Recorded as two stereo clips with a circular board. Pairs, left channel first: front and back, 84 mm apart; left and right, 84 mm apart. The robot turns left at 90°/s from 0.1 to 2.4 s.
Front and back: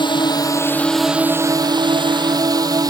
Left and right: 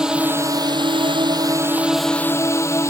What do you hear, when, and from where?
0.0 s a drone: 10° right; by 2.9 s 145° left